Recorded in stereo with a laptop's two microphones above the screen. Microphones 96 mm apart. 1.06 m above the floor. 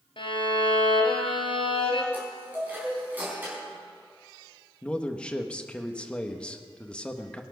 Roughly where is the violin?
Left.